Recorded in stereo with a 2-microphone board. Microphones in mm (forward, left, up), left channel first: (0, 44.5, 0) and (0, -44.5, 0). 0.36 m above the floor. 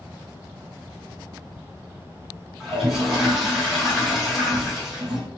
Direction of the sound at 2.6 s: 5° right (ahead or behind).